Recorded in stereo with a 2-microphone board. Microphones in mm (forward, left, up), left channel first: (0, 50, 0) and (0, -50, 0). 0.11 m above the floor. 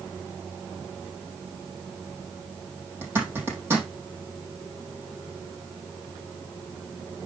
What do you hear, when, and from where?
3.0 s a zipper: 20° right (ahead or behind), 4.5 m